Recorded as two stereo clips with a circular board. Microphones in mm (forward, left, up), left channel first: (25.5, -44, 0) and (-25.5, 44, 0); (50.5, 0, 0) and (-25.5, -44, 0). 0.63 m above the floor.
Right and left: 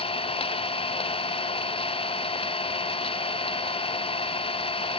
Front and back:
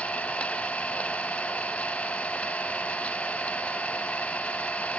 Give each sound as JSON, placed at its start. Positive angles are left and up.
{"t": 0.0, "sound": "an engine running", "azimuth_deg": -45, "distance_m": 0.9}